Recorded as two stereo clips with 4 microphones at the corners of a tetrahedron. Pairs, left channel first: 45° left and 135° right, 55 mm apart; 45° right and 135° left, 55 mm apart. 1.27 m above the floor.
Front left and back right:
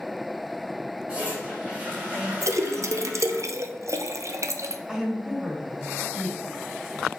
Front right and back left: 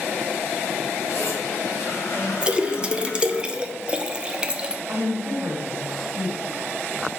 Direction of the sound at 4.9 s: 155° left.